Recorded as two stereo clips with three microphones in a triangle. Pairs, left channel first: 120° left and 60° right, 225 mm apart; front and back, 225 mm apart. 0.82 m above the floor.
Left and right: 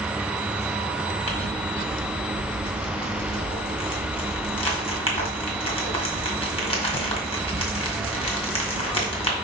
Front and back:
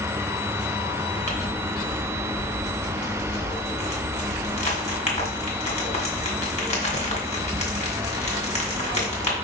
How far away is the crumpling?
About 2 m.